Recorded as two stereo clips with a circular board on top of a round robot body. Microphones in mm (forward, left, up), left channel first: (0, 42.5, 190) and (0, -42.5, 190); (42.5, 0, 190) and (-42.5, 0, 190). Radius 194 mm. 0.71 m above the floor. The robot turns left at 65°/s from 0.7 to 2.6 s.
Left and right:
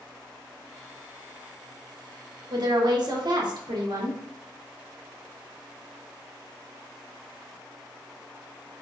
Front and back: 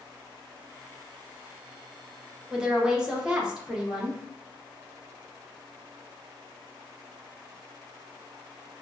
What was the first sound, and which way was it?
A woman speaking, 95° right.